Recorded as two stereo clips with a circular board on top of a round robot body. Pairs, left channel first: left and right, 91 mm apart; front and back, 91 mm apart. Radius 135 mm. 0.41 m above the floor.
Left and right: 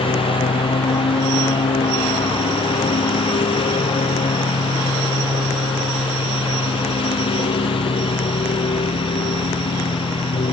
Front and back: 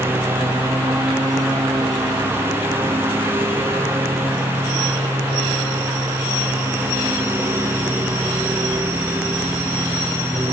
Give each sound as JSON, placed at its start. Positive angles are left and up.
{"t": 0.0, "sound": "a lawn mower", "azimuth_deg": 115}